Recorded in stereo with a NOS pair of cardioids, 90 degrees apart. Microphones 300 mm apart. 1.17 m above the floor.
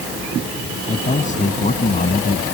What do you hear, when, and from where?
0.9 s a man speaking: 25° left